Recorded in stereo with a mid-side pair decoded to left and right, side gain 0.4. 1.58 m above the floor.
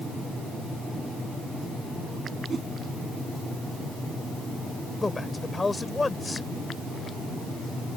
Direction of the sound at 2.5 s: 45° right.